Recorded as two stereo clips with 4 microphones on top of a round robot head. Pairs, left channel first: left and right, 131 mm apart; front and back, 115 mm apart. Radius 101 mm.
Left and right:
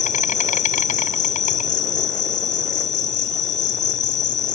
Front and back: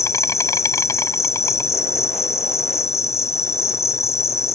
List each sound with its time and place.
0.0 s an insect: 65° left